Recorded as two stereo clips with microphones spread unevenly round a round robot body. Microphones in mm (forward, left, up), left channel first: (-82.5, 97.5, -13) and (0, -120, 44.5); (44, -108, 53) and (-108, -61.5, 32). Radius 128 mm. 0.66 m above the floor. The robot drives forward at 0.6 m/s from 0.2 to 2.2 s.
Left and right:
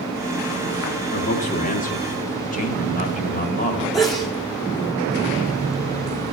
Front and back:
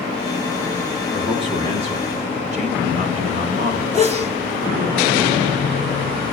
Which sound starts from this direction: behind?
A sneeze, at 3.9 s.